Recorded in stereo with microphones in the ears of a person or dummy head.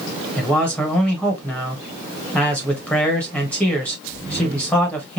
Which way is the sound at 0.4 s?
5° left (ahead or behind).